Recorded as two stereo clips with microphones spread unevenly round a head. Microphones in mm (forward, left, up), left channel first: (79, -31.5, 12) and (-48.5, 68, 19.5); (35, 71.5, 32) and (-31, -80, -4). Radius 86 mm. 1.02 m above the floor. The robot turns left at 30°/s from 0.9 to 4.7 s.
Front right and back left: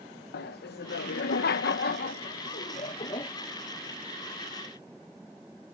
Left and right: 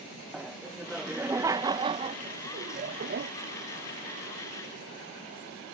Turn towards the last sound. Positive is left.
turn(degrees=-145)